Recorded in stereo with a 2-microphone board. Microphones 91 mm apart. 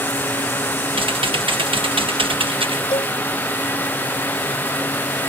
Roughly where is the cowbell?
Left.